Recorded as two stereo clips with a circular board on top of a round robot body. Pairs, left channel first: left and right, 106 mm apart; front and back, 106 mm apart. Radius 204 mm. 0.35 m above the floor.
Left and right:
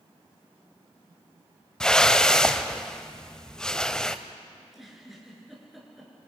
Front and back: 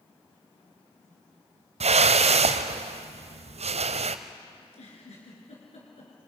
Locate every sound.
1.8 s a whoosh: 175° left, 0.8 m
4.6 s a giggle: straight ahead, 5.5 m